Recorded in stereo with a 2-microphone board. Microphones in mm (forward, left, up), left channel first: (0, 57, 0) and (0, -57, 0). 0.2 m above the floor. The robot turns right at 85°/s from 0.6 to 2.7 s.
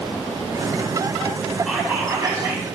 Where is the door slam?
No door slam in this recording.